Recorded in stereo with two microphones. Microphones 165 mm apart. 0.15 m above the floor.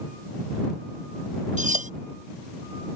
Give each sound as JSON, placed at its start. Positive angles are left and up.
{"t": 1.6, "sound": "cutlery clinking", "side_deg": -45}